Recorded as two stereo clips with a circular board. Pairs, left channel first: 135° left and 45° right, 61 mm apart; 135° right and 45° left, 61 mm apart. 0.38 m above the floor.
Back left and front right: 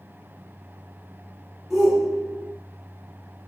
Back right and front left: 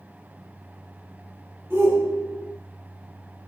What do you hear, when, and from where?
1.7 s a shout: 35° left, 1.8 m